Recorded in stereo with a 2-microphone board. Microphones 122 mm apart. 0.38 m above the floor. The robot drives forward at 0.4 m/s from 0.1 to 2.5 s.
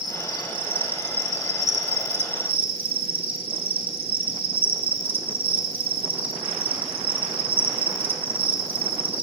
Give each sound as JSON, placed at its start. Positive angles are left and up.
{"t": 0.0, "sound": "an insect", "side_deg": -40, "distance_m": 0.8}